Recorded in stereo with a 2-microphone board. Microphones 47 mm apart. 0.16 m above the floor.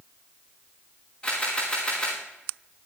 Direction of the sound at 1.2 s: 25° left (ahead or behind).